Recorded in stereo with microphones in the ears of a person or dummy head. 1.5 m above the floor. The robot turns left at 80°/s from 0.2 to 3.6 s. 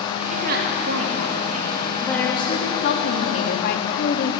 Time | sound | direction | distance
0.3 | a woman speaking | 40° right | 3.5 m